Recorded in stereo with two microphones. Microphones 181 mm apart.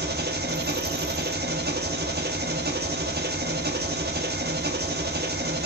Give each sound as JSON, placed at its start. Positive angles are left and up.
{"t": 0.0, "sound": "an engine running", "side_deg": -60, "distance_m": 1.1}